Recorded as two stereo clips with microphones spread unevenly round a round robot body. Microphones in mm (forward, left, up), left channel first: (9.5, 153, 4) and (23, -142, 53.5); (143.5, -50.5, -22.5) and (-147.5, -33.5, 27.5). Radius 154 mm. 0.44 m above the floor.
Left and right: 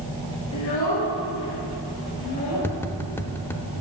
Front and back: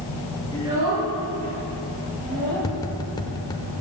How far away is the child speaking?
About 4 m.